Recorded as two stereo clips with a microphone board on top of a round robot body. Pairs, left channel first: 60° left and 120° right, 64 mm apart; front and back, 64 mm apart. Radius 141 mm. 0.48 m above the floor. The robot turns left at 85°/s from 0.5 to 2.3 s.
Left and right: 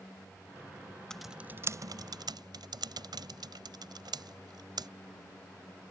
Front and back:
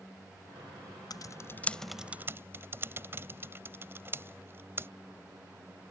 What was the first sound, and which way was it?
Typing on a keyboard, 20° right.